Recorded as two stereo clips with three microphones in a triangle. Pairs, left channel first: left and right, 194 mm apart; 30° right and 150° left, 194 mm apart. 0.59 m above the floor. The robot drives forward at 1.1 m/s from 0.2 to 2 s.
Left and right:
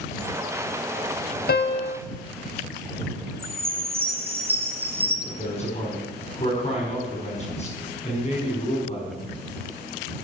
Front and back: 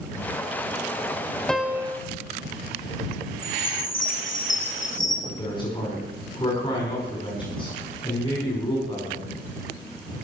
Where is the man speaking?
35° left, 5 m.